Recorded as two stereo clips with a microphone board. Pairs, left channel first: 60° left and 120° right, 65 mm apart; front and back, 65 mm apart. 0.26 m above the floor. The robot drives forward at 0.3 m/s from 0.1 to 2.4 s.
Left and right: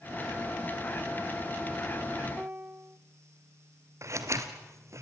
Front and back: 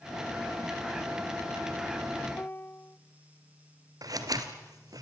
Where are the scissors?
160° right, 2 m.